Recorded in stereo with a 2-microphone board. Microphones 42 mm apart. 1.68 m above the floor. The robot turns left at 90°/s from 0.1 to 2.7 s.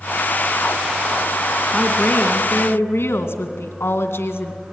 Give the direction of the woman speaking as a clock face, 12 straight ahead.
7 o'clock.